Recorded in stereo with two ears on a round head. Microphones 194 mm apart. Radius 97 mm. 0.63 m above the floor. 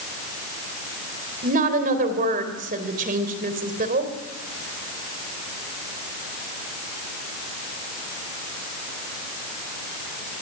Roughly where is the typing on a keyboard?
I don't hear typing on a keyboard.